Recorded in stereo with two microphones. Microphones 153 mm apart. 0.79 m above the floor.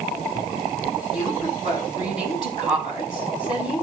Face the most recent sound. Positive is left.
turn(degrees=30)  # may be behind; listen again after turning